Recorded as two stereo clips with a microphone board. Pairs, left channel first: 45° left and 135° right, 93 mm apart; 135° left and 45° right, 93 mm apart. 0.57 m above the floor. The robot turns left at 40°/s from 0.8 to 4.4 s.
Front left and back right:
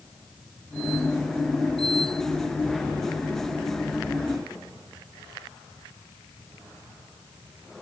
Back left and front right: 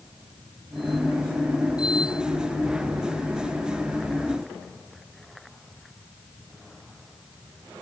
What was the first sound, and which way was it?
Only background noise.